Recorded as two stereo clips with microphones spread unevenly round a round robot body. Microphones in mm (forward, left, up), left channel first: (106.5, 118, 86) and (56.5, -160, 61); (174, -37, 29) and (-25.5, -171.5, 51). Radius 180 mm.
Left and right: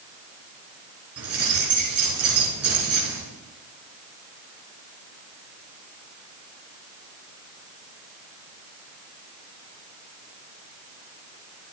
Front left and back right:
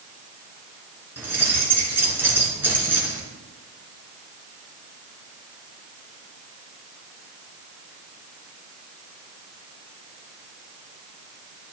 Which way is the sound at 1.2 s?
65° right.